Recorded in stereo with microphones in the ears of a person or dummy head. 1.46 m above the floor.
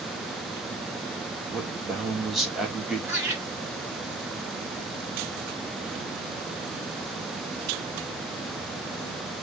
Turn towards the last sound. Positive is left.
turn(degrees=-10)  # may be behind; listen again after turning